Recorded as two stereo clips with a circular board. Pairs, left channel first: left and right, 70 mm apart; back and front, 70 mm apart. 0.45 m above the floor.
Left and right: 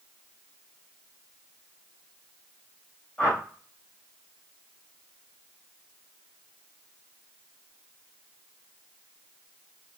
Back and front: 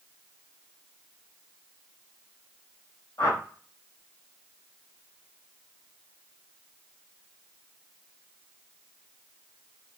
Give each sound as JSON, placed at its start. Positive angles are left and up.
{"t": 3.2, "sound": "a whoosh", "azimuth_deg": 160, "distance_m": 3.0}